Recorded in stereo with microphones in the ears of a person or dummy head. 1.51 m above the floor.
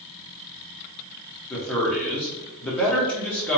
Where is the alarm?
I don't hear an alarm.